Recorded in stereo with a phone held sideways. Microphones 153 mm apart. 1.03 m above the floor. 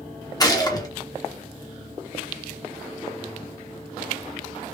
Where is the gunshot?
25° left (ahead or behind), 1.0 m.